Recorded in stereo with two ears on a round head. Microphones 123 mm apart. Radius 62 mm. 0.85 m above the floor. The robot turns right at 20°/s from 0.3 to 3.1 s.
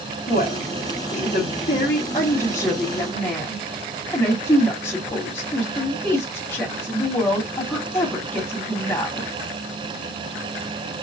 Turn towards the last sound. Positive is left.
turn(degrees=20)  # may be behind; listen again after turning